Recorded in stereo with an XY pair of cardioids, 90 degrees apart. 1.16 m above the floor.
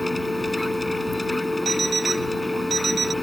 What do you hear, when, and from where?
0.0 s a machine running: 15° left
1.6 s an alarm clock: 45° right